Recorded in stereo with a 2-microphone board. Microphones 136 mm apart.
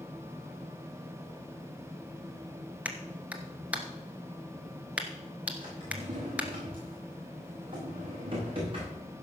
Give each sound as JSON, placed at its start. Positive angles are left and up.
{"t": 2.9, "sound": "a clap", "side_deg": -10, "distance_m": 1.3}
{"t": 5.6, "sound": "a drawer", "side_deg": -40, "distance_m": 6.0}